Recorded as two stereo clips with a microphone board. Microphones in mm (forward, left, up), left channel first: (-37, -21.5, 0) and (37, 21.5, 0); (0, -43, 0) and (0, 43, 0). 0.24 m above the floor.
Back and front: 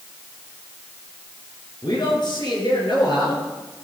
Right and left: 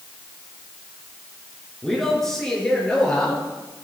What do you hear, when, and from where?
1.8 s a man speaking: 175° right, 4 m; by 3.5 s 165° right, 6 m